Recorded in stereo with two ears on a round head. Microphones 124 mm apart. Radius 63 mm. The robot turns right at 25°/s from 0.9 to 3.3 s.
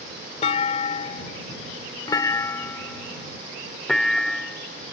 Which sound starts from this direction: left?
A clunk, at 0.4 s.